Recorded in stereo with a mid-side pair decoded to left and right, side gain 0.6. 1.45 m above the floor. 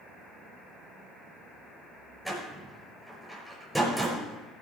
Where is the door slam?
5° right, 5.5 m.